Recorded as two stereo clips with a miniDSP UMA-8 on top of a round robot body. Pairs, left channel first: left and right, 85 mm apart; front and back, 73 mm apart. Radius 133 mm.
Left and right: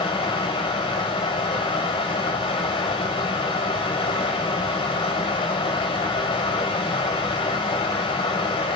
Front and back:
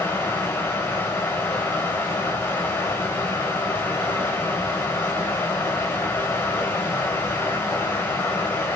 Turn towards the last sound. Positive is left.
turn(degrees=65)